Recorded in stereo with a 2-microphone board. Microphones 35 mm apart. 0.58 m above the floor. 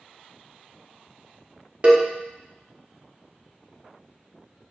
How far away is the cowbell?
About 0.6 m.